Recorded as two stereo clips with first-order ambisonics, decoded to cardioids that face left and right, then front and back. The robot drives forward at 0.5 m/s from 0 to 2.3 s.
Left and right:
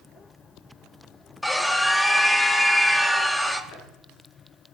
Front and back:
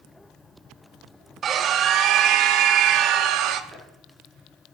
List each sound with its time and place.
1.4 s a scream: 170° left, 0.8 m; by 3.6 s 175° left, 1.0 m
3.7 s chopping: 120° left, 6 m